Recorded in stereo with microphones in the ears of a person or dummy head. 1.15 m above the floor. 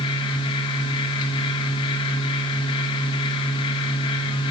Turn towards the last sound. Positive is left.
turn(degrees=30)  # may be behind; listen again after turning